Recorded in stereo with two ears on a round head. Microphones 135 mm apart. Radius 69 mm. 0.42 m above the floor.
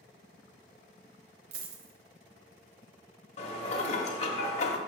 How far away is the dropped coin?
About 0.8 m.